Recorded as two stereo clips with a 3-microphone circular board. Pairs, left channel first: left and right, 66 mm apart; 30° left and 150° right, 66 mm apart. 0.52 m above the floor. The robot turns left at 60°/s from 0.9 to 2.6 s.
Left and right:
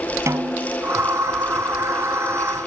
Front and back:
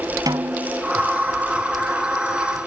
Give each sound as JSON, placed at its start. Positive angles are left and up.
{"t": 0.3, "sound": "a snare drum", "azimuth_deg": -135}